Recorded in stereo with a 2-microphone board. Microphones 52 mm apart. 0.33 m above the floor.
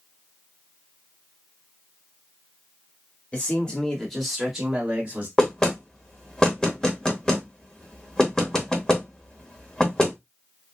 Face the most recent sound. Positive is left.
turn(degrees=15)  # may be behind; listen again after turning